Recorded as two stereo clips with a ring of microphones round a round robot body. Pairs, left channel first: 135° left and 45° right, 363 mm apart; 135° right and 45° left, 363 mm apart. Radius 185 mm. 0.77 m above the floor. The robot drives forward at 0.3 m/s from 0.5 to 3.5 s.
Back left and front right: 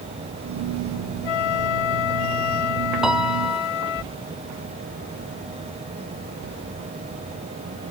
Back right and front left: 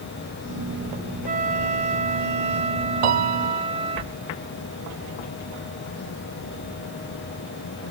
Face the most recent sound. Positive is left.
turn(degrees=45)